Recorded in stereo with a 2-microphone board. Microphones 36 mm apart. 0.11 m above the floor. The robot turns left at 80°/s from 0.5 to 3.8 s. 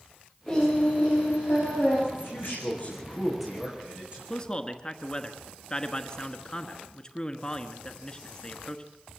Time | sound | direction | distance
0.5 | singing | 170° left | 9.5 m
2.1 | a man speaking | 105° left | 6.5 m
4.3 | a man speaking | 20° left (ahead or behind) | 1.2 m